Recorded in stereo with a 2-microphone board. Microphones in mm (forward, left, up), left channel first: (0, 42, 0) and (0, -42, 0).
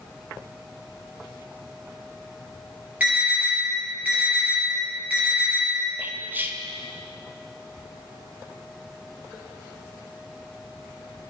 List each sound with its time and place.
3.0 s an alarm: 15° right (ahead or behind), 4.5 m
6.0 s whispering: 25° right (ahead or behind), 0.9 m